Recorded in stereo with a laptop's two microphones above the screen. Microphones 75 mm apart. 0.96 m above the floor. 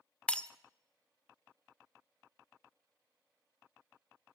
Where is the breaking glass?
15° left (ahead or behind), 0.8 m.